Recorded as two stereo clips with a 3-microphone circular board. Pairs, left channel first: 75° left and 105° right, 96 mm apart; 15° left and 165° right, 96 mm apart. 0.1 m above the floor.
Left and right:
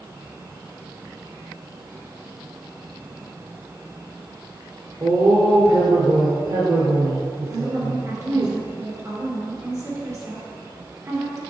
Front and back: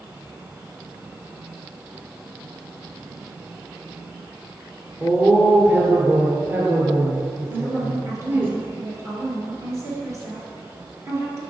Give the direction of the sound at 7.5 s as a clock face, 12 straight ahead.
4 o'clock.